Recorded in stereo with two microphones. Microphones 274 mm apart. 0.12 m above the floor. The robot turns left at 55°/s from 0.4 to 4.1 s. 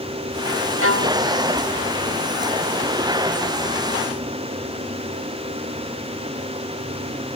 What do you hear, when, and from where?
0.8 s a violin: 50° right (ahead or behind); by 1.2 s 75° right (ahead or behind)